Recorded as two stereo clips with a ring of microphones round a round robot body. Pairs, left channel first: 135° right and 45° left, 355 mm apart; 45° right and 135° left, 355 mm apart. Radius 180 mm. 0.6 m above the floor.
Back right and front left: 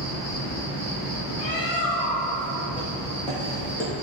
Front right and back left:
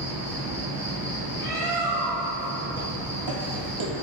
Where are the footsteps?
140° left, 1.7 m.